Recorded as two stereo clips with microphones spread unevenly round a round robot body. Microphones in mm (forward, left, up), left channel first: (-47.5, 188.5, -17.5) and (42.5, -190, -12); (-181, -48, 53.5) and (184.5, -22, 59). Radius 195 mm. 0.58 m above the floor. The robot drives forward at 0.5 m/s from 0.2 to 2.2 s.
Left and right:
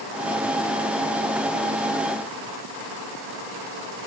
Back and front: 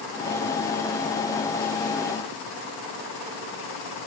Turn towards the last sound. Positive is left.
No sound to turn to.